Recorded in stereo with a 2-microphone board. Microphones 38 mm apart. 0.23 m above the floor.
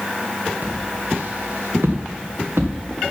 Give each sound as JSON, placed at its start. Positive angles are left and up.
{"t": 0.6, "sound": "footsteps", "side_deg": -50, "distance_m": 2.5}